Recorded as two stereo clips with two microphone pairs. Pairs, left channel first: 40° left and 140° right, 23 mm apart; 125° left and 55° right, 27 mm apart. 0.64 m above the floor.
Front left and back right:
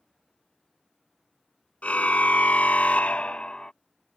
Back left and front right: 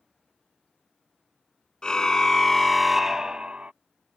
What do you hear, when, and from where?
1.8 s a car horn: 65° left; by 3.7 s 15° right